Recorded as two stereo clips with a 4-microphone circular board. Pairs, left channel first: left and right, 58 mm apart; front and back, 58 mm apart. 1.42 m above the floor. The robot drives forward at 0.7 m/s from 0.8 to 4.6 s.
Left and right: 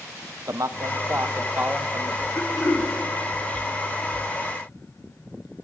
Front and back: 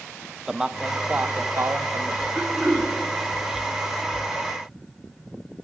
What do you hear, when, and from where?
0.5 s a man speaking: 105° right, 0.5 m; by 2.2 s 155° right, 1.2 m
2.4 s throat clearing: 90° left, 3.5 m; by 2.9 s 100° left, 3.5 m